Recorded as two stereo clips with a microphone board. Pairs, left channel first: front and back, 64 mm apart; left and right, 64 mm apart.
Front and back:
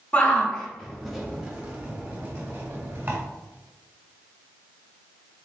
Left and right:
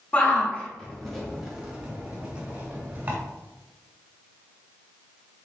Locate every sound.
0.1 s a shout: 50° left, 1.2 m; by 3.2 s 145° right, 1.6 m